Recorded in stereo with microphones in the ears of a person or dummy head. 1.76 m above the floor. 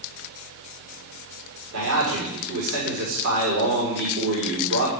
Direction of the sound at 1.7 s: 75° right (ahead or behind).